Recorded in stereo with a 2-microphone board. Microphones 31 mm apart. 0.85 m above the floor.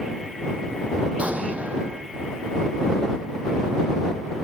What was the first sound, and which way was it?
An explosion, 50° right (ahead or behind).